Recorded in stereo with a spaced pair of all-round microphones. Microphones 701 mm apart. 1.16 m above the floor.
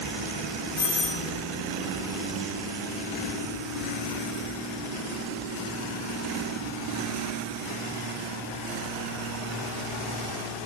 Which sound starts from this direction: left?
A doorbell, at 0.8 s.